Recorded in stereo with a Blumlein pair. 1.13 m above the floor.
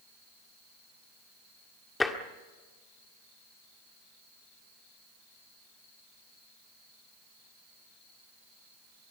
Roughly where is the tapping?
Ahead.